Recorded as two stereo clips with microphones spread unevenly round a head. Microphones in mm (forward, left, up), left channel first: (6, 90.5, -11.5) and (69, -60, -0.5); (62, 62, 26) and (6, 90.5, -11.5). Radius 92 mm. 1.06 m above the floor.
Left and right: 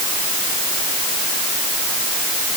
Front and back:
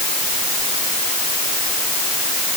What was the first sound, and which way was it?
Only background noise.